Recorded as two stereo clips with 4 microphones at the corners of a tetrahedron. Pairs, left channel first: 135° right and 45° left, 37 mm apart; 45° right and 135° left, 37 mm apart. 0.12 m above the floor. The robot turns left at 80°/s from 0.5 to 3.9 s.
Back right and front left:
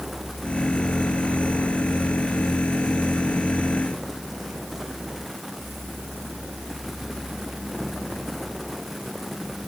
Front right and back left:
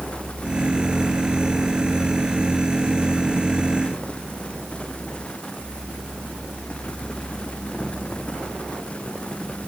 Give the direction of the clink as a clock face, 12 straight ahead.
I don't hear a clink.